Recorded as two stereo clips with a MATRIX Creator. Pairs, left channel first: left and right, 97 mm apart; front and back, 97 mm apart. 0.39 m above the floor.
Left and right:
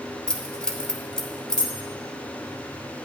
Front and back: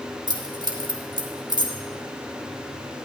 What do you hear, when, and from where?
0.3 s keys jangling: 170° left, 1.1 m